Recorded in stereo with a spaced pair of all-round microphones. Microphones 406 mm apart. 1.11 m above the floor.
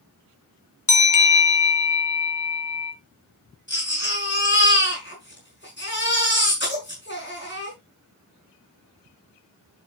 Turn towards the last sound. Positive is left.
turn(degrees=25)  # may be behind; listen again after turning